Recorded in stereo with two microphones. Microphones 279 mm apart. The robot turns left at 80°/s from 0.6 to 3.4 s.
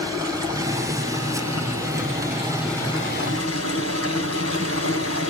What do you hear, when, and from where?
0.0 s running water: 15° right, 3 m; by 5.3 s 120° left, 3 m